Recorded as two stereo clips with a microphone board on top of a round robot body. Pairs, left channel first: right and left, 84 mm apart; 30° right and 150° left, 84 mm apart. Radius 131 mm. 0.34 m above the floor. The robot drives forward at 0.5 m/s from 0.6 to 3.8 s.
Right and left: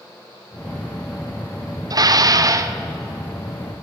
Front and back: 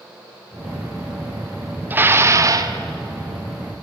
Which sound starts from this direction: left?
Dishes clattering, at 1.9 s.